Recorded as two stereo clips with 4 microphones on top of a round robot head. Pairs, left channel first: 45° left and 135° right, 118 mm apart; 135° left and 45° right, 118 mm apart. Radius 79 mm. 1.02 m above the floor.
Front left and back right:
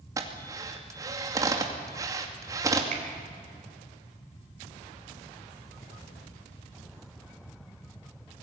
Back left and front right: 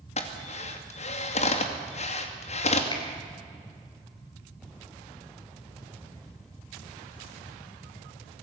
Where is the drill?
160° left, 2.5 m.